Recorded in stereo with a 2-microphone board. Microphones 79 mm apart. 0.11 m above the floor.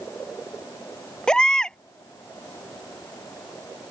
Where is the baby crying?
10° left (ahead or behind).